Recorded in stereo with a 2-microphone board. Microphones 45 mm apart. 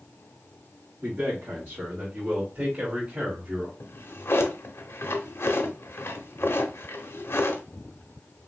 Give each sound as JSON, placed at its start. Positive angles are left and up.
{"t": 1.0, "sound": "a man speaking", "side_deg": -60, "distance_m": 2.0}
{"t": 3.8, "sound": "a drawer", "side_deg": 70, "distance_m": 0.8}